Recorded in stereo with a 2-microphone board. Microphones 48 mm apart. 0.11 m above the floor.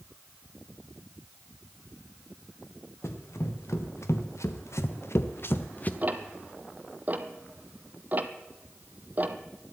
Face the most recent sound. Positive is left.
turn(degrees=-35)  # may be behind; listen again after turning